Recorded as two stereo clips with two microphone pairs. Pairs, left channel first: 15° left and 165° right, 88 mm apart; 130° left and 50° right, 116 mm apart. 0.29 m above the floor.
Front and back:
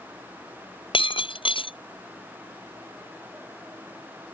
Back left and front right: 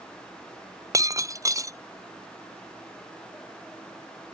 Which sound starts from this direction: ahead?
Breaking glass, at 0.9 s.